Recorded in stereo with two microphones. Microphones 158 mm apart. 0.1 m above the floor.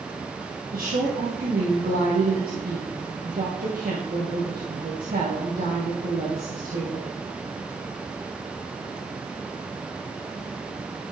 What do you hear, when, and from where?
0.7 s a woman speaking: 70° right (ahead or behind), 3 m